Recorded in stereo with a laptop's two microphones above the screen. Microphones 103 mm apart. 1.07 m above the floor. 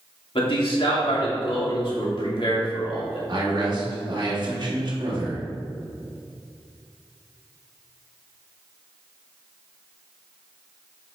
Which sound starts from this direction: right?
A man speaking, at 3.3 s.